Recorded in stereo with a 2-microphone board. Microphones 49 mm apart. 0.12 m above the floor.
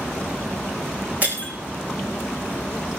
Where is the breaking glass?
30° right (ahead or behind), 4 m.